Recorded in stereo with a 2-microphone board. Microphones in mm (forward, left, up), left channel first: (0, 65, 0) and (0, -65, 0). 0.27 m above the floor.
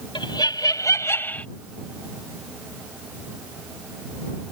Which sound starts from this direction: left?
Laughter, at 0.1 s.